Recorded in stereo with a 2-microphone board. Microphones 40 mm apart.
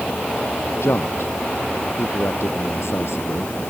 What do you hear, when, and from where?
0.8 s a man speaking: 85° left